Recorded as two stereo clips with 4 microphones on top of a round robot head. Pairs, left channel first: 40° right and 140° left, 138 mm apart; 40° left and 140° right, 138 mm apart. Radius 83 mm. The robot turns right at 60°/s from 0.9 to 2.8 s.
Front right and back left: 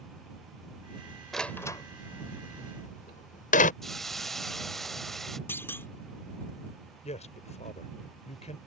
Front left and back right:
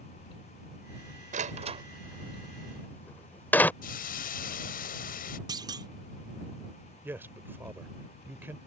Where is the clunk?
105° right.